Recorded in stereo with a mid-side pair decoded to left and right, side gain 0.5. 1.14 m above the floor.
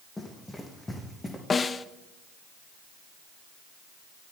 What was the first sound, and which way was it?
Running footsteps, 20° left.